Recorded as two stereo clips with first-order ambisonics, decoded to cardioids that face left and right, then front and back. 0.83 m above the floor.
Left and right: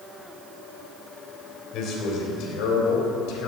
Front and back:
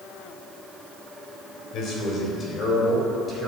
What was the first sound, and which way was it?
A man speaking, 45° left.